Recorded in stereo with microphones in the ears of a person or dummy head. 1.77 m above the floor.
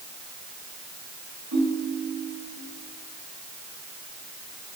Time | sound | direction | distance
1.5 | a ringtone | 80° right | 4.5 m